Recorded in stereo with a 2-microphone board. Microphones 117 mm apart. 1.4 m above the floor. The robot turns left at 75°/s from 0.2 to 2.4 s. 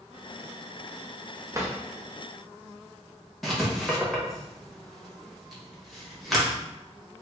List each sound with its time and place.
1.5 s a drawer: 30° right (ahead or behind), 0.8 m; by 1.8 s 20° right (ahead or behind), 0.8 m
3.4 s writing: centre (ahead or behind), 0.9 m